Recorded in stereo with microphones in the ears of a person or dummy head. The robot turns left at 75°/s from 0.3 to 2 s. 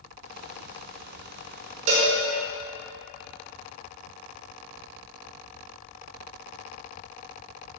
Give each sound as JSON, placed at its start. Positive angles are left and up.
{"t": 1.9, "sound": "a cowbell", "side_deg": -35, "distance_m": 1.0}